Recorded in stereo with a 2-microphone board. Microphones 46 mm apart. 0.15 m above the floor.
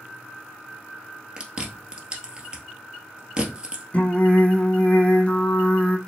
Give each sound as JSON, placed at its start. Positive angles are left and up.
{"t": 1.4, "sound": "chewing", "side_deg": -20, "distance_m": 1.6}
{"t": 3.9, "sound": "singing", "side_deg": 30, "distance_m": 1.0}